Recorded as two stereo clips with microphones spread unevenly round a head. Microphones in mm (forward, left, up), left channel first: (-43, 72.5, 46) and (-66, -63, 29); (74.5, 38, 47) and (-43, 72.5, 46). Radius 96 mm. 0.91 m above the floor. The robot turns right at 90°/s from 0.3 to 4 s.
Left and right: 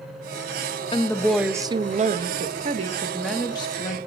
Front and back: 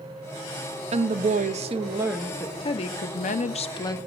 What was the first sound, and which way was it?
A woman speaking, 135° left.